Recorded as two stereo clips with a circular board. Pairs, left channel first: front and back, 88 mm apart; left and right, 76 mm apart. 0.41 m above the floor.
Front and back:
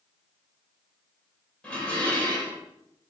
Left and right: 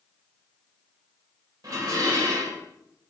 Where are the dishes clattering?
75° right, 1.1 m.